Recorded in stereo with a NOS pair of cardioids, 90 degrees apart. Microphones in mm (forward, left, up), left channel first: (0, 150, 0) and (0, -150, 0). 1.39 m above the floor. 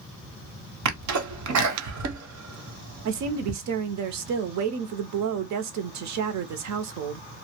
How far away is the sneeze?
About 1.0 m.